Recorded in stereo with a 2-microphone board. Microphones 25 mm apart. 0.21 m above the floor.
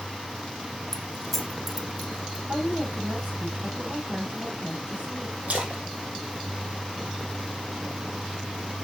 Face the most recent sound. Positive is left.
turn(degrees=-60)  # may be behind; listen again after turning